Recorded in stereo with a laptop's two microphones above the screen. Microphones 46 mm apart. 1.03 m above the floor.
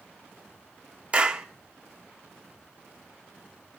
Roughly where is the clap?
Right.